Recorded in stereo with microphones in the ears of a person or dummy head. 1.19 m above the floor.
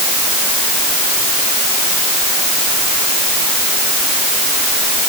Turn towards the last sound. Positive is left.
No sound to turn to.